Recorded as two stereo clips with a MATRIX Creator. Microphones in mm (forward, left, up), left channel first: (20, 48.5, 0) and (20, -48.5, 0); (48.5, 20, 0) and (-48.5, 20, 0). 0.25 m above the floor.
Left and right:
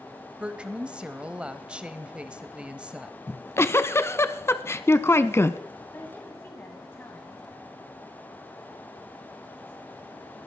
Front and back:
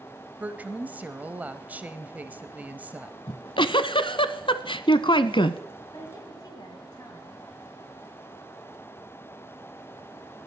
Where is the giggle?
25° left, 0.7 m.